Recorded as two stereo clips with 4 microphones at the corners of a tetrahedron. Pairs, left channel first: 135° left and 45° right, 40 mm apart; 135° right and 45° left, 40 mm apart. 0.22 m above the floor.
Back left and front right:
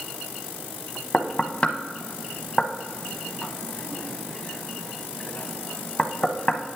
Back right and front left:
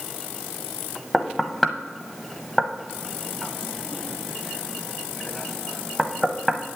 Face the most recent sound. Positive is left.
turn(degrees=140)